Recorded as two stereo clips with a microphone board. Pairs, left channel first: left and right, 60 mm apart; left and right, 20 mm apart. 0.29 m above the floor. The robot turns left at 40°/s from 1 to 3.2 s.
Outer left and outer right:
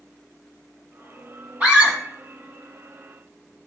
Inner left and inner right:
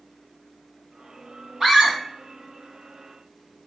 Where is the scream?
25° right (ahead or behind), 1.7 m; by 2.0 s 15° right (ahead or behind), 1.7 m.